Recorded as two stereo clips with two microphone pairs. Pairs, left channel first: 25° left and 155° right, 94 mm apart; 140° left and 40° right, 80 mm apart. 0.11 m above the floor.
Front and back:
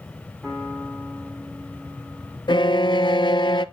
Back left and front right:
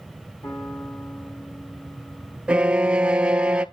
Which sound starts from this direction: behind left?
A piano, at 0.4 s.